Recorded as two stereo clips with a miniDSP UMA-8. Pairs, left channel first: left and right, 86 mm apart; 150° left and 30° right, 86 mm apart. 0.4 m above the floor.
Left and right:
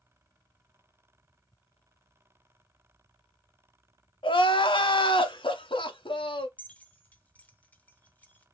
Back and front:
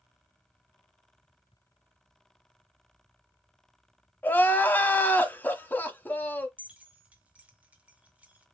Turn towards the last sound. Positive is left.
turn(degrees=30)